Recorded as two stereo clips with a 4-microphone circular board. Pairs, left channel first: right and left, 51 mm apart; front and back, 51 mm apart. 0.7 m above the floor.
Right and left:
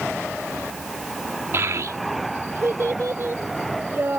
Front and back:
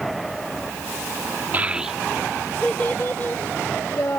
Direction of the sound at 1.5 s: 125° left.